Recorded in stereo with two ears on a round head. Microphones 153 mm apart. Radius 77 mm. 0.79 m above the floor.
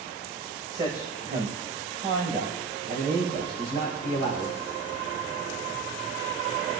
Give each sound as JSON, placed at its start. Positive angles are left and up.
{"t": 0.7, "sound": "a man speaking", "side_deg": -20, "distance_m": 4.0}